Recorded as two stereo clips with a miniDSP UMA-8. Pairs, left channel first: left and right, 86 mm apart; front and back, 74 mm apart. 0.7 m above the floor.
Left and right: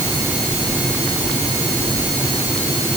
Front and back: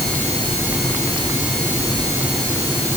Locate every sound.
Only background noise.